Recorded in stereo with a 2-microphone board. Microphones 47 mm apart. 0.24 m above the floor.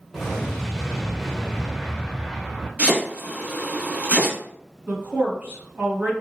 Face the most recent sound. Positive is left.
turn(degrees=-40)  # may be behind; listen again after turning